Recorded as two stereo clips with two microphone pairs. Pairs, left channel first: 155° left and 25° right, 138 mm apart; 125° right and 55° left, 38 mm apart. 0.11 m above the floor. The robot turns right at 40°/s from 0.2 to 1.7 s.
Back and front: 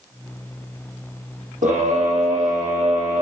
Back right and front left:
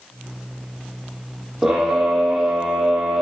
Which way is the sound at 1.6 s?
25° right.